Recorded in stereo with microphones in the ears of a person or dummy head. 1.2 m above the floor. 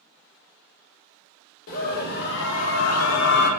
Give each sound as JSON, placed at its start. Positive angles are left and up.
{"t": 1.7, "sound": "a scream", "side_deg": 50, "distance_m": 1.1}